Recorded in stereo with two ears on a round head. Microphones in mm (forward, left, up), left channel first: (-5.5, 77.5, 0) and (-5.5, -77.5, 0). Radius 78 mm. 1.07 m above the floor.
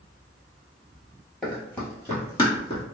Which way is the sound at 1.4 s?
5° left (ahead or behind).